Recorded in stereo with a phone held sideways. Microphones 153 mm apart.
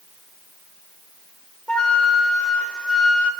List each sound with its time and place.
1.7 s a flute: 5° left (ahead or behind), 0.5 m